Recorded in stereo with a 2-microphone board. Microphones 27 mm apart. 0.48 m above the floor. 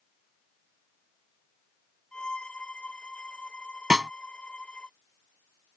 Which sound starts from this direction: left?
A violin, at 2.1 s.